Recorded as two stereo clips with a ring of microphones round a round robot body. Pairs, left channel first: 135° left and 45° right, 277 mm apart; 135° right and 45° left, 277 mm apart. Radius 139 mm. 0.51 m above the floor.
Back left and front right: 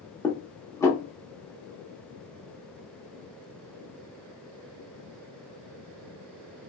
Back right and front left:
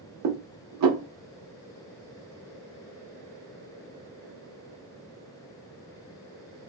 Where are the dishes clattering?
55° left, 0.8 m.